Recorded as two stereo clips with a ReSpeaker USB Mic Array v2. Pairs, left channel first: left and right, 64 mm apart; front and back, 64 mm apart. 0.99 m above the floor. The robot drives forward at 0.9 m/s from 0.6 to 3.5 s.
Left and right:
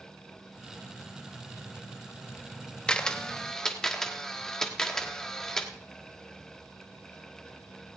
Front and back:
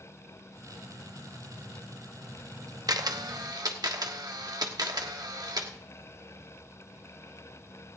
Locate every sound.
2.9 s a camera shutter: 165° left, 0.8 m; by 5.7 s 170° left, 1.3 m